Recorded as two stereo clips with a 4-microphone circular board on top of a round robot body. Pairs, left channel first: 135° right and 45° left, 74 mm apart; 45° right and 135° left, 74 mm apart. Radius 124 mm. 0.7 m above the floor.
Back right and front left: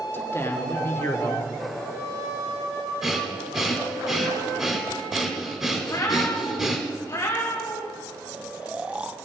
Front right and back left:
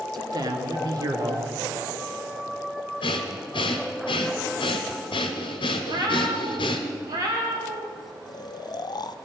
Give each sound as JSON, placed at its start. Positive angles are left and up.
{"t": 0.1, "sound": "a man speaking", "azimuth_deg": 165, "distance_m": 1.4}
{"t": 3.0, "sound": "breathing", "azimuth_deg": -35, "distance_m": 0.9}
{"t": 5.8, "sound": "a cat meowing", "azimuth_deg": 175, "distance_m": 1.5}
{"t": 8.3, "sound": "snoring", "azimuth_deg": -30, "distance_m": 0.5}